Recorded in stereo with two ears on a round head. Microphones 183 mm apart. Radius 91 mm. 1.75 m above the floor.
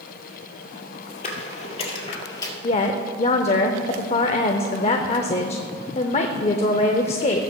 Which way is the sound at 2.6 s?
30° left (ahead or behind).